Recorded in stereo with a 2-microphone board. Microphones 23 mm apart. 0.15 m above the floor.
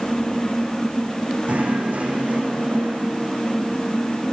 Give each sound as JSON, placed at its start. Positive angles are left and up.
{"t": 1.5, "sound": "knocking", "side_deg": -80, "distance_m": 6.5}